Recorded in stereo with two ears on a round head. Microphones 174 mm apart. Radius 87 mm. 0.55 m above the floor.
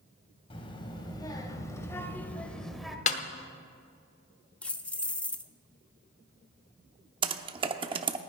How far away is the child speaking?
About 2.5 m.